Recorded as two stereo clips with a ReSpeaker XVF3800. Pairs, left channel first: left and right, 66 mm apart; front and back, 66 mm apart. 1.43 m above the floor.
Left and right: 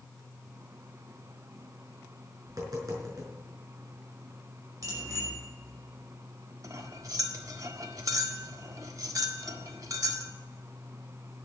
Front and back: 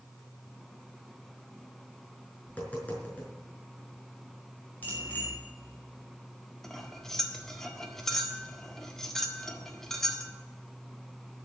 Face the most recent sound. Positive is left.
turn(degrees=-80)